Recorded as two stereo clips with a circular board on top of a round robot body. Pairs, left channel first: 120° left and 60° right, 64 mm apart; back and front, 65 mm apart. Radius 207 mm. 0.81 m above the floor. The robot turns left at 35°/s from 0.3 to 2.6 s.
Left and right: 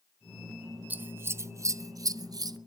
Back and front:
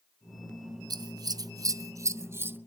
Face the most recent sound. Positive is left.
turn(degrees=-60)